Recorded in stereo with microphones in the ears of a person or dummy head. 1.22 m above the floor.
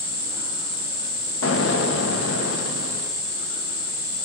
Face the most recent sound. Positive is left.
turn(degrees=75)  # may be behind; listen again after turning